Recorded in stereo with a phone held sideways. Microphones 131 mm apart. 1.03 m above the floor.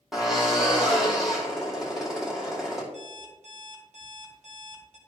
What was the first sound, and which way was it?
A drill, 5° right (ahead or behind).